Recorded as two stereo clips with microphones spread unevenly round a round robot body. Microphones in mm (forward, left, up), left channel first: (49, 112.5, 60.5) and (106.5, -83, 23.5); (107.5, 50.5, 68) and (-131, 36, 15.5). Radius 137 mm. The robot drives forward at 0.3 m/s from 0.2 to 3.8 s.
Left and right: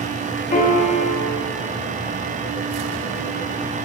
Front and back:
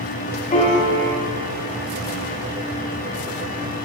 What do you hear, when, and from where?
0.5 s a piano: 60° left, 0.7 m; by 1.2 s 75° left, 0.6 m